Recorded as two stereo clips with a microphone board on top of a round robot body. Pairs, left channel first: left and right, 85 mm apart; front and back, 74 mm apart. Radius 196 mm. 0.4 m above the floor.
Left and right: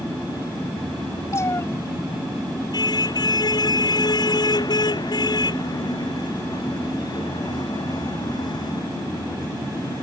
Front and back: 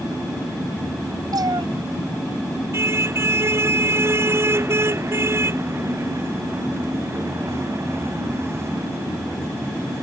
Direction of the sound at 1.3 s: 145° left.